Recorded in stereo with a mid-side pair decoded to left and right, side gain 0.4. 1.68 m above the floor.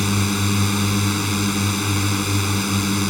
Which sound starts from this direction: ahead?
A drone, at 0.0 s.